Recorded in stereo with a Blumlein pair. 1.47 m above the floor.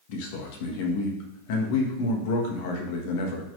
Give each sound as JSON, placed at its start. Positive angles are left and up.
{"t": 0.1, "sound": "a man speaking", "azimuth_deg": 50, "distance_m": 1.6}